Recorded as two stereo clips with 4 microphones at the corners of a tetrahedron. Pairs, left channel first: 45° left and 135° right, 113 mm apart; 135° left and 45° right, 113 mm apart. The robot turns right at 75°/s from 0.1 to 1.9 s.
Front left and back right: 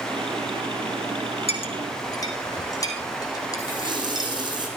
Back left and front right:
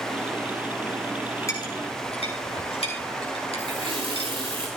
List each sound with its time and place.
1.5 s a clink: 70° left, 4 m; by 4.3 s 105° left, 4 m
3.6 s a running tap: 85° right, 5 m